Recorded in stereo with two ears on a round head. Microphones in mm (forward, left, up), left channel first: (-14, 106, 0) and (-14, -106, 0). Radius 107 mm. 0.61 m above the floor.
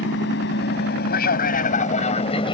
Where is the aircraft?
50° left (ahead or behind); by 2.5 s 20° left (ahead or behind).